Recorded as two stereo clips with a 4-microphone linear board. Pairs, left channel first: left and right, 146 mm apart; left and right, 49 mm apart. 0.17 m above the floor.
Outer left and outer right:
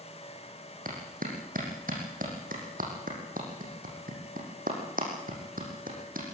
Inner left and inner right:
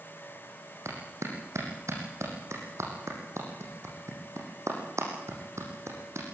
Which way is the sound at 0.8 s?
80° right.